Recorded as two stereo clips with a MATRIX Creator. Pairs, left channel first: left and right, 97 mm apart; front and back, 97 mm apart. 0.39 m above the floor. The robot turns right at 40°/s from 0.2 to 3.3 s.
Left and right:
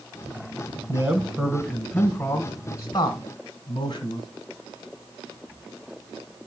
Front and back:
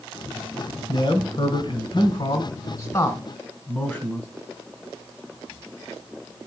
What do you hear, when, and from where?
0.9 s a man speaking: 35° right, 1.4 m; by 4.3 s 60° left, 1.4 m